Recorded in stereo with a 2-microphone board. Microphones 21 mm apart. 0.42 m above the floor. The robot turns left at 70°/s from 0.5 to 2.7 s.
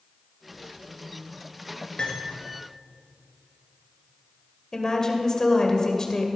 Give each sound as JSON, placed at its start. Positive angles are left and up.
{"t": 2.0, "sound": "cutlery clinking", "side_deg": 60, "distance_m": 3.5}
{"t": 4.7, "sound": "a woman speaking", "side_deg": 35, "distance_m": 1.8}